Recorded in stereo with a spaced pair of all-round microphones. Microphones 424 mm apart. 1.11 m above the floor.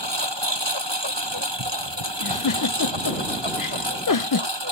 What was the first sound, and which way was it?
A lawn mower, 80° right.